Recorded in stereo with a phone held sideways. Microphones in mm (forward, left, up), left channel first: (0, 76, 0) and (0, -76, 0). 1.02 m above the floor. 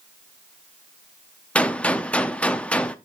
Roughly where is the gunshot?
Centre.